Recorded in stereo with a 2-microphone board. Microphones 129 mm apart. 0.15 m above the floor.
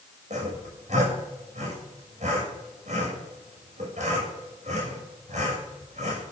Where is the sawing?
60° right (ahead or behind), 6.5 m.